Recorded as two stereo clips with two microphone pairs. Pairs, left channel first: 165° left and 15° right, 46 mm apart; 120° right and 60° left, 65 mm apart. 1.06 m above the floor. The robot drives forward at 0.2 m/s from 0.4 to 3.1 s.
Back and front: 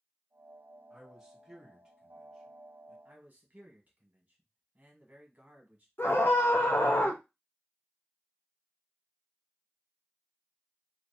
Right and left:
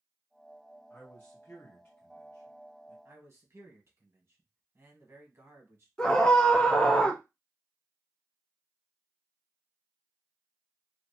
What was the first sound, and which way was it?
A man speaking, 70° right.